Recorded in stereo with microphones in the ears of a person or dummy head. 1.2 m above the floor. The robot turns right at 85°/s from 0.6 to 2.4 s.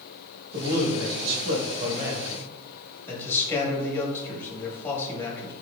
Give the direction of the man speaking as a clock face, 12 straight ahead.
5 o'clock.